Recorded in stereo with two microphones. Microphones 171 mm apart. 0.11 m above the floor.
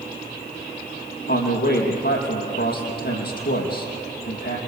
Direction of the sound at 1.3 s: 70° left (ahead or behind).